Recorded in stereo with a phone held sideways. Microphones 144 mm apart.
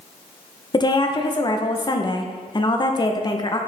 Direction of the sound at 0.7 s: 30° left (ahead or behind).